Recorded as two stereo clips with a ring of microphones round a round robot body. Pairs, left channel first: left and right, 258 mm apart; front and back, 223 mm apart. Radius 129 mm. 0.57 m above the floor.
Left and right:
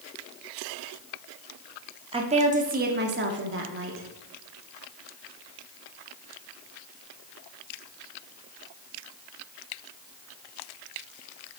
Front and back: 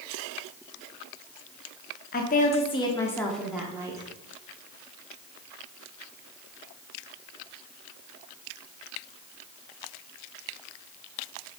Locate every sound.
2.1 s a woman speaking: 30° right, 1.2 m; by 4.1 s 110° right, 1.3 m